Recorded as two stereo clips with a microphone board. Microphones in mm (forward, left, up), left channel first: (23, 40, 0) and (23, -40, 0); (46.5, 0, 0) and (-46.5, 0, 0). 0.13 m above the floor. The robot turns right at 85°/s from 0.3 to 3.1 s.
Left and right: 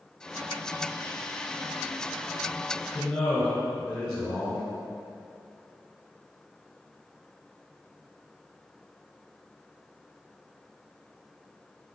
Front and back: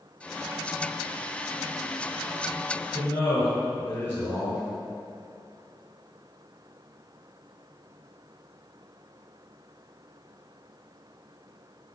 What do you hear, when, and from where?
2.9 s a man speaking: 15° left, 1.5 m; by 4.7 s 30° left, 1.5 m